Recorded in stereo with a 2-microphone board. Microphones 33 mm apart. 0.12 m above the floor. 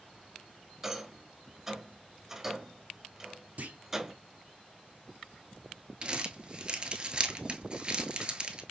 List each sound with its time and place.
0.8 s a rattle: 10° right (ahead or behind), 0.6 m
3.6 s a clunk: 55° right (ahead or behind), 1.0 m
6.0 s crumpling: 30° right (ahead or behind), 0.9 m